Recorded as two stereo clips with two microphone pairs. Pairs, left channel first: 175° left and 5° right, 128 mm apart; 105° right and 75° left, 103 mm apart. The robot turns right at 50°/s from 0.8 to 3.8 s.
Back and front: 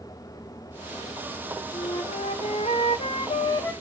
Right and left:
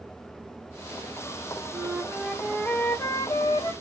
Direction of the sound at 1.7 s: 135° left.